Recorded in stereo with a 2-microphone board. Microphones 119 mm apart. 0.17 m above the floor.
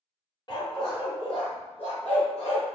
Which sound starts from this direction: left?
A dog barking, at 0.5 s.